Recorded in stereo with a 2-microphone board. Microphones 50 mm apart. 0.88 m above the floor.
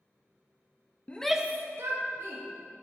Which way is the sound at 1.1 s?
30° left (ahead or behind).